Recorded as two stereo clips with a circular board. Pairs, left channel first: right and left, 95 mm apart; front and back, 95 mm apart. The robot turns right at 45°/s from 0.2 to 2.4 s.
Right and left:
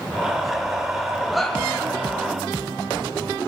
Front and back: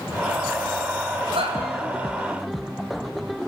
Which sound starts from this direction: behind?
A shout, at 1.3 s.